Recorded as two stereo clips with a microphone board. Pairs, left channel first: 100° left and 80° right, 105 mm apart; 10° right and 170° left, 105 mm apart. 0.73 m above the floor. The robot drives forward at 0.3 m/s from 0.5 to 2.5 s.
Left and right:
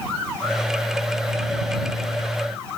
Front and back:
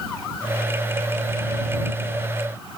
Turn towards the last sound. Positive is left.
No sound to turn to.